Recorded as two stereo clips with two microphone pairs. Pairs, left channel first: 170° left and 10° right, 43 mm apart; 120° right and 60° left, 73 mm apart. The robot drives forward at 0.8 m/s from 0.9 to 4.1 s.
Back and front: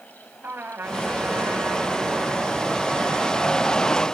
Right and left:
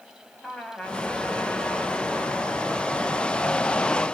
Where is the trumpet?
45° right, 6.5 m; by 4.1 s 65° right, 5 m.